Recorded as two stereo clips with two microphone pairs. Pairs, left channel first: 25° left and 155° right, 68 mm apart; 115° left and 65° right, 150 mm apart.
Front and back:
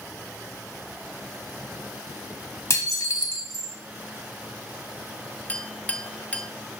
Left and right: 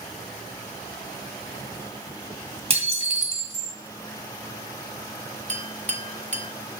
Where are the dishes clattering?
15° right, 1.8 m.